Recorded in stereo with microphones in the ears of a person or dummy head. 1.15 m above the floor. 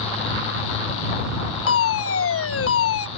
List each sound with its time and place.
1.7 s a fire alarm: 70° left (ahead or behind)